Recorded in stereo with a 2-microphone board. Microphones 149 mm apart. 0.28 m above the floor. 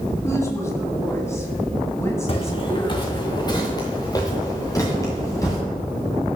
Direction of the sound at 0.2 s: 20° left (ahead or behind).